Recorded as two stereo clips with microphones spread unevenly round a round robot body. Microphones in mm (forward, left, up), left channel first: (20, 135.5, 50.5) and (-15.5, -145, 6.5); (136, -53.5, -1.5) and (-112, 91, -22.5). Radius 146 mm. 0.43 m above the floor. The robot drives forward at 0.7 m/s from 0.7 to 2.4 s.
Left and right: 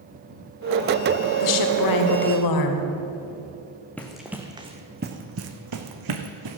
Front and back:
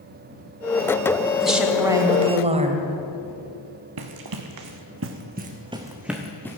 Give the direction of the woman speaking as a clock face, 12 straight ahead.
10 o'clock.